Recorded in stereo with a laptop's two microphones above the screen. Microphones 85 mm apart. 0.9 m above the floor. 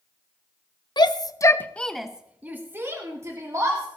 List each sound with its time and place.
1.0 s a shout: 55° left (ahead or behind), 0.9 m; by 3.9 s 40° right (ahead or behind), 2 m